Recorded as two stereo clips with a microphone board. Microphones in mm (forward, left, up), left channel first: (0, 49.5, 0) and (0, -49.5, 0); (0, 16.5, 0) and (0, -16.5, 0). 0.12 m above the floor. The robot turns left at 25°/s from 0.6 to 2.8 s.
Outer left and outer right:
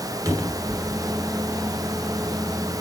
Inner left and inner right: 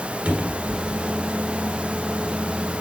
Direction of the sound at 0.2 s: 35° right (ahead or behind).